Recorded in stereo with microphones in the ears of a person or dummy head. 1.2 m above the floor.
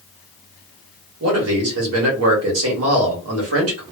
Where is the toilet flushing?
No toilet flushing in this recording.